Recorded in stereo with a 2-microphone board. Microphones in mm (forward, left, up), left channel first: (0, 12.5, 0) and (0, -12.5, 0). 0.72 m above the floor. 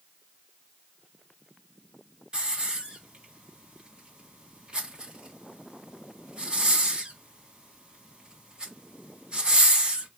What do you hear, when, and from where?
2.3 s a hiss: 40° right (ahead or behind), 1.1 m